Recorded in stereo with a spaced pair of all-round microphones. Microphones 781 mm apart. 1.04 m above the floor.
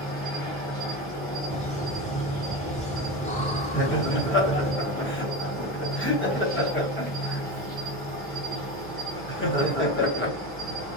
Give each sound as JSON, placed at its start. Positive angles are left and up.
{"t": 0.0, "sound": "an insect", "side_deg": 10, "distance_m": 1.3}
{"t": 1.5, "sound": "laughter", "side_deg": 10, "distance_m": 0.8}
{"t": 3.7, "sound": "laughter", "side_deg": 15, "distance_m": 0.8}